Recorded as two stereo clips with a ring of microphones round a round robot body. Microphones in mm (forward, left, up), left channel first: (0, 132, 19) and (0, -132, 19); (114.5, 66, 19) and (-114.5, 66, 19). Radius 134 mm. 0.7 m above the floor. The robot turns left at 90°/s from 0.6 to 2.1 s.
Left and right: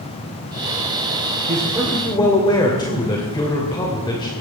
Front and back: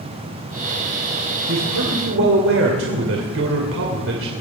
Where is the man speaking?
140° right, 2.5 m; by 4.3 s 160° left, 2.5 m.